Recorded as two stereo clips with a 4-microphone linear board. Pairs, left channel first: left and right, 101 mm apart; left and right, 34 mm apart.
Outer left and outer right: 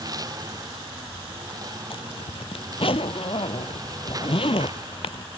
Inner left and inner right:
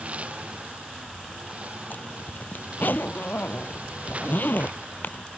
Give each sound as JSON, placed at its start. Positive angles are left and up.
{"t": 0.0, "sound": "a lawn mower", "side_deg": -40}
{"t": 1.9, "sound": "a zipper", "side_deg": 65}